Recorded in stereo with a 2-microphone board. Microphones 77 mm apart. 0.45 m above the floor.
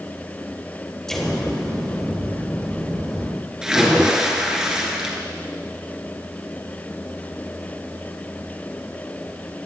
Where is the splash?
10° right (ahead or behind), 1.8 m.